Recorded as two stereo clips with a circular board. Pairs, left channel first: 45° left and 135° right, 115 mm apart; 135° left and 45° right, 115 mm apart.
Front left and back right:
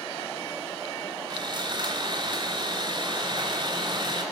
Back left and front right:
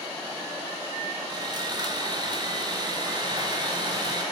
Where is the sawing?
90° right, 3.5 m.